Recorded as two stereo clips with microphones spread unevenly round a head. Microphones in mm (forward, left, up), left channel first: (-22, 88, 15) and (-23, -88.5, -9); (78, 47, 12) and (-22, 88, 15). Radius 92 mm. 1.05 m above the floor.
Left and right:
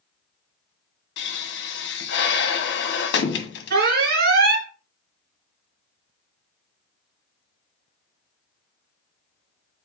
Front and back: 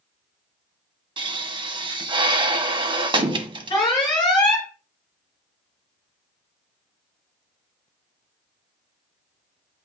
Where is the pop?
115° left, 1.3 m.